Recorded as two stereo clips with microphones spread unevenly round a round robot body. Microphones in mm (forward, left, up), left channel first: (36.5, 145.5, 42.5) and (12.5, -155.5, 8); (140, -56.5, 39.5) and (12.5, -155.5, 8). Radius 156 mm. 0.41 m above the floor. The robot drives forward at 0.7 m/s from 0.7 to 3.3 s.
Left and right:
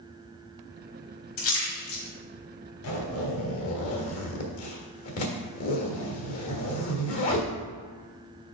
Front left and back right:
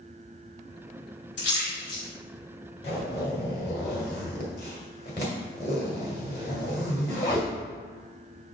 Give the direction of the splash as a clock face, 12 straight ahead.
10 o'clock.